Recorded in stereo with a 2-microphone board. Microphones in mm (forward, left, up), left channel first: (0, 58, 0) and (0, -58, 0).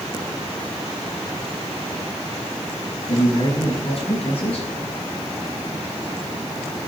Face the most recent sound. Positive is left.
turn(degrees=60)  # may be behind; listen again after turning